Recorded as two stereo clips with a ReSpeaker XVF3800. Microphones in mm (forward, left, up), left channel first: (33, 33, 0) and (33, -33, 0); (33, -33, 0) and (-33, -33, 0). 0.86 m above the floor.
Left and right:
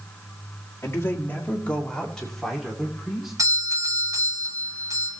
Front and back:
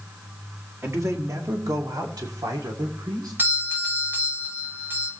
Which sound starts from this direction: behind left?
A man speaking, at 0.8 s.